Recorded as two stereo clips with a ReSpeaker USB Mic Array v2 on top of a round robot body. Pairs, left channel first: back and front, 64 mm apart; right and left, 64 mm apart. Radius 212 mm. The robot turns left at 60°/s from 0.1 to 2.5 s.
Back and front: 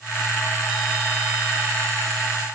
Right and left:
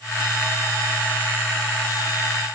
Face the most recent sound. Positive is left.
No sound to turn to.